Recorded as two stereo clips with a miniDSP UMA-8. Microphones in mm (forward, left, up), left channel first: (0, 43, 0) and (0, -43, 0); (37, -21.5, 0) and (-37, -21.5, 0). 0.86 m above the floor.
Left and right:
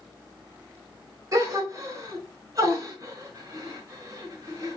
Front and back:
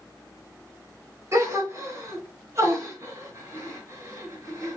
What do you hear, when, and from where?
1.3 s a gasp: 135° right, 1.3 m